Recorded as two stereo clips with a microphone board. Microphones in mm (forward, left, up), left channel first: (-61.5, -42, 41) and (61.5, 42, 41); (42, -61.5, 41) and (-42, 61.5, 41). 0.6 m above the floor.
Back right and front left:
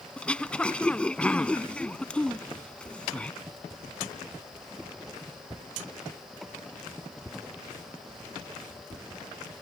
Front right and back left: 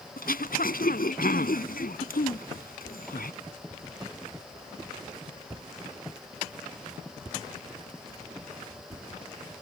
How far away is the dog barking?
I don't hear a dog barking.